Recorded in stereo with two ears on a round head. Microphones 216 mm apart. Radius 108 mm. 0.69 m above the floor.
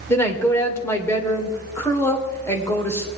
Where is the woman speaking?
10° left (ahead or behind), 2.5 m.